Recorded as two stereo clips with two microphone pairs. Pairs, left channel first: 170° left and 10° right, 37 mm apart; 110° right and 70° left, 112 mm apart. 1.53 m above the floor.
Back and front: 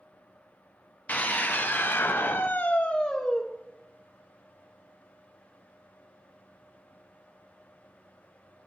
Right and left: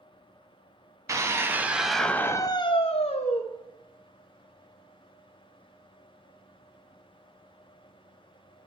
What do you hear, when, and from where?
1.1 s a scream: 130° left, 0.9 m; by 3.4 s 115° right, 0.8 m